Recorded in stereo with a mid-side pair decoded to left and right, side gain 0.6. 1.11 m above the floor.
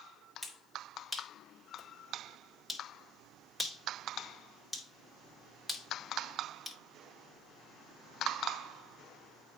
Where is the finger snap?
5° left, 3.5 m.